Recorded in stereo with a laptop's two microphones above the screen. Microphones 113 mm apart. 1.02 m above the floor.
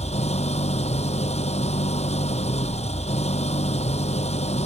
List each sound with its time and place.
0.0 s an engine running: 80° left